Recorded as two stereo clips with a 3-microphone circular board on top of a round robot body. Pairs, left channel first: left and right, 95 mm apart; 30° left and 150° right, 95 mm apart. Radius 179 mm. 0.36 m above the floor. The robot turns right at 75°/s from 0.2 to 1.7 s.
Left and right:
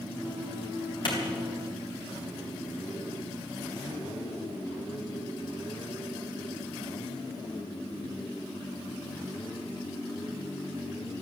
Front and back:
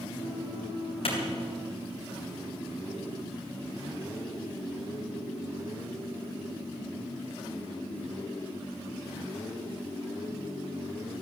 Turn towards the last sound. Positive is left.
turn(degrees=100)